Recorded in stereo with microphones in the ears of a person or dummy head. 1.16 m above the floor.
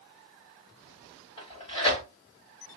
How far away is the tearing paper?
About 1.1 m.